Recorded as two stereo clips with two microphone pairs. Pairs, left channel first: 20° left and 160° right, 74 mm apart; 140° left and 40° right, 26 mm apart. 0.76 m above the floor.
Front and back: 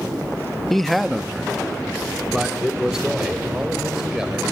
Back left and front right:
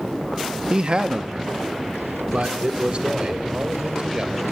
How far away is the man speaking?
About 0.6 m.